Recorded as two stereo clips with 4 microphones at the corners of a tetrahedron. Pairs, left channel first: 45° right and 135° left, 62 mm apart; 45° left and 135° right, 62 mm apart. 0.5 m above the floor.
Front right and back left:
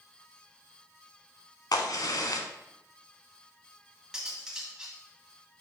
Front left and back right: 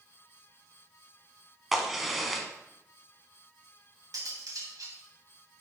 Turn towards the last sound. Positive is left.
turn(degrees=-145)